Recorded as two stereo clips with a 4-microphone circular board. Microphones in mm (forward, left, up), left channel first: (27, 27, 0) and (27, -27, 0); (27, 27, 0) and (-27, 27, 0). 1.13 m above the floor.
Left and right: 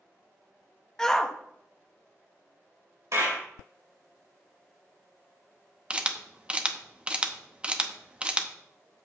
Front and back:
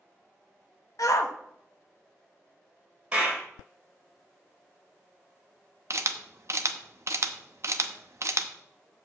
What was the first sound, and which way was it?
A shout, 10° left.